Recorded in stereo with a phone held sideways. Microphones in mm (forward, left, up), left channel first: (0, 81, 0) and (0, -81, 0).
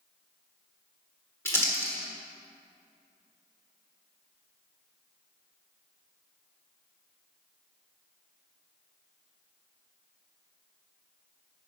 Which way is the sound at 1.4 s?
15° left (ahead or behind).